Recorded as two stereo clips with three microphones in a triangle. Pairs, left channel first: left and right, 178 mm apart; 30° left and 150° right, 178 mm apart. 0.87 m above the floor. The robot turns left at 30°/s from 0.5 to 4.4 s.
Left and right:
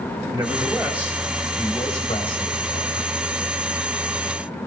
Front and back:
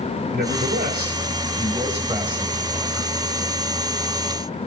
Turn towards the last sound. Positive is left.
turn(degrees=85)